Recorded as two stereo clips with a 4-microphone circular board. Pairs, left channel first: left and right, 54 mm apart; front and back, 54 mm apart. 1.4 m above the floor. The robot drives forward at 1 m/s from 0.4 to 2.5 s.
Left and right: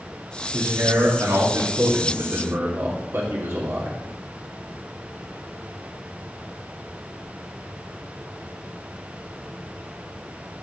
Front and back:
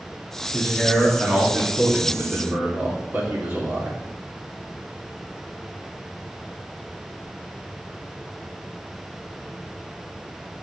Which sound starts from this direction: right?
A man speaking, at 0.5 s.